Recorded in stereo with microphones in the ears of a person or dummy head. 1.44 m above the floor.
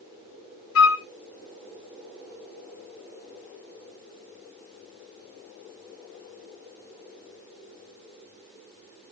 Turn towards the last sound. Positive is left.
turn(degrees=75)  # may be behind; listen again after turning